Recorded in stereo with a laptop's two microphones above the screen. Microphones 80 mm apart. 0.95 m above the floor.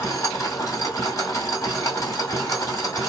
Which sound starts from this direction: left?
A machine running, at 0.0 s.